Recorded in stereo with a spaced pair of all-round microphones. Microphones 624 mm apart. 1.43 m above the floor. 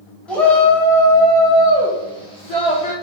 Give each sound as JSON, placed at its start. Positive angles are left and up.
{"t": 0.3, "sound": "a shout", "side_deg": 0, "distance_m": 2.5}